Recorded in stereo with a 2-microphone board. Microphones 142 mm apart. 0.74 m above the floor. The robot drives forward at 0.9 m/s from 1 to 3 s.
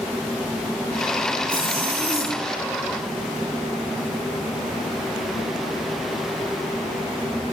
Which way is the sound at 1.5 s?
40° right (ahead or behind).